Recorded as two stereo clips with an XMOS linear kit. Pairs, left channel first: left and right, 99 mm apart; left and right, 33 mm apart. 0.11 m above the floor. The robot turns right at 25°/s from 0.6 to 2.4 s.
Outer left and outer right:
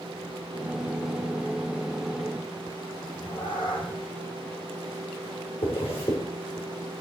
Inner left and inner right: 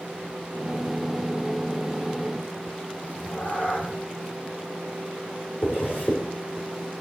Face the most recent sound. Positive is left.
turn(degrees=75)  # may be behind; listen again after turning